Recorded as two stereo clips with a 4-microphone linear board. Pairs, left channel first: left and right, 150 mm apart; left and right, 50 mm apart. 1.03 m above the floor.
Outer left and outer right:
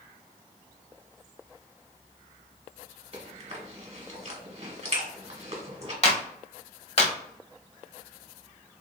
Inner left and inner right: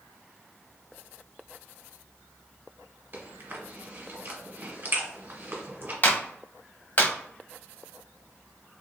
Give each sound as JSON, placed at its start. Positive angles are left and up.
{"t": 3.1, "sound": "chewing", "side_deg": -45, "distance_m": 1.2}
{"t": 6.0, "sound": "a clap", "side_deg": 45, "distance_m": 0.8}